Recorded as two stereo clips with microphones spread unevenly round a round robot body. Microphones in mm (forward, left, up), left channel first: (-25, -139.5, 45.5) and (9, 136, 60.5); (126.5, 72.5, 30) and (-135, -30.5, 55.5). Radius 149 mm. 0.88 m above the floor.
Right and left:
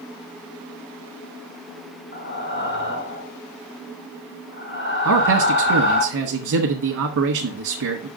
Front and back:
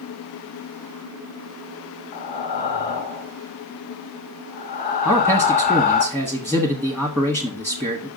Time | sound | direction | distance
2.1 | breathing | 40° right | 1.2 m
5.0 | a man speaking | 120° left | 1.5 m